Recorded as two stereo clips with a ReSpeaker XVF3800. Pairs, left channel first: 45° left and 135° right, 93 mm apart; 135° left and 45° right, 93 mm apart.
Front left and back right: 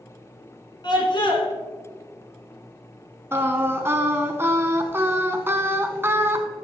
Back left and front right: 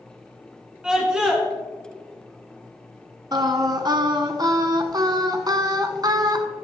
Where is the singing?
75° right, 0.9 m.